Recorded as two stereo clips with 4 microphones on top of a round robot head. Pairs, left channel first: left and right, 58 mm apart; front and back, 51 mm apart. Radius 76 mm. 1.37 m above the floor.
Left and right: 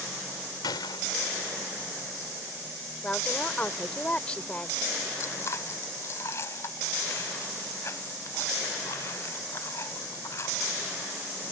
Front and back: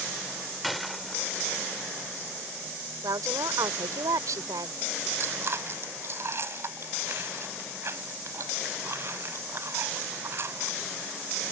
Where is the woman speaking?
165° left.